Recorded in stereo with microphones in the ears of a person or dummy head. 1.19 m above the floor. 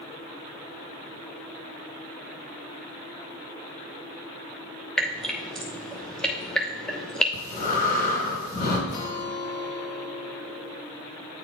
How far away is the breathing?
About 3 m.